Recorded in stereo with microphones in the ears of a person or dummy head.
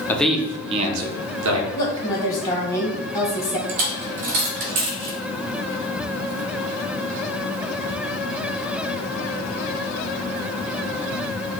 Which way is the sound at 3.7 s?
45° right (ahead or behind).